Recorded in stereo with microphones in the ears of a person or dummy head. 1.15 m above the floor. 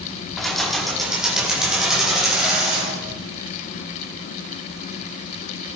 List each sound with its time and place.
0.4 s keys jangling: centre (ahead or behind), 1.6 m